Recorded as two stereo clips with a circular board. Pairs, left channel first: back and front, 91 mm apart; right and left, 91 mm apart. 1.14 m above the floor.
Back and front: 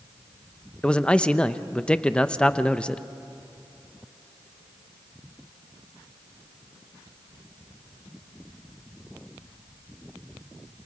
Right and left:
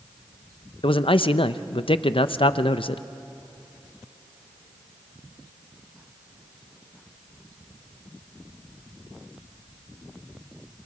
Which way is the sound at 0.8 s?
100° right.